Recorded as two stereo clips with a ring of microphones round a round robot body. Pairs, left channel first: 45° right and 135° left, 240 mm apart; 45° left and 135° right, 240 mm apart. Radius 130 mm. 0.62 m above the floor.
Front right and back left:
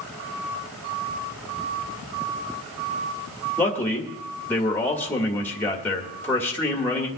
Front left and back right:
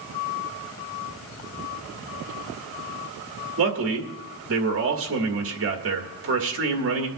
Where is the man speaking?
125° right, 1.9 m.